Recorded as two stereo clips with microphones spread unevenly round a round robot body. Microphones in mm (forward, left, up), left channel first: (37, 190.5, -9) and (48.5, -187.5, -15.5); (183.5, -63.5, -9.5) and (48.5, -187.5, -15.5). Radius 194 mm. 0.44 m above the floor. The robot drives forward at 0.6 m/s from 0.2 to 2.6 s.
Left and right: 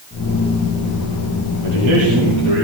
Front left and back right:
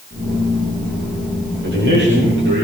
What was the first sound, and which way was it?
A man speaking, 125° right.